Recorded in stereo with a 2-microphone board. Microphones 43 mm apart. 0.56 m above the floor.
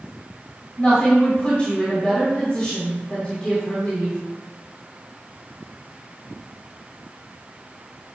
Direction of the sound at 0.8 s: 20° left (ahead or behind).